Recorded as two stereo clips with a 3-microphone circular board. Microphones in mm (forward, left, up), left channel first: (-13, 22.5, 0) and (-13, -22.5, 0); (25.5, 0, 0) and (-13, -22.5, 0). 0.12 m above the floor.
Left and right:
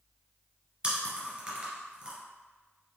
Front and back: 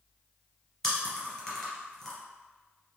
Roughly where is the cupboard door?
No cupboard door in this recording.